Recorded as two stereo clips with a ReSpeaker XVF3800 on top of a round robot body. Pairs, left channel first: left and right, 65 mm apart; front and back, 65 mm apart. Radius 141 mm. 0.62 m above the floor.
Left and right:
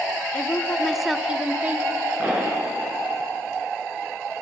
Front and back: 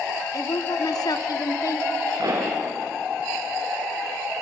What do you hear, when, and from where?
0.3 s a woman speaking: 25° left, 1.8 m; by 1.9 s 35° right, 2 m
2.2 s a pop: 155° right, 7.5 m